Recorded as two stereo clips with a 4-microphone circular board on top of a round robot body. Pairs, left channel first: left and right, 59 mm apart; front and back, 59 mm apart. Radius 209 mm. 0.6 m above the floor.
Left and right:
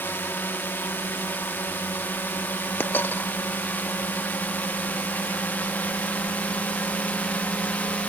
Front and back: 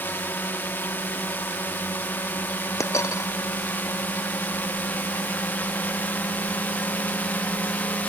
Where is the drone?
45° left; by 8.1 s 40° left.